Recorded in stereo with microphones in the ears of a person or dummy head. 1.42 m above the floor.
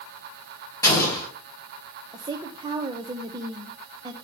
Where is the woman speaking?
25° right (ahead or behind), 0.7 m.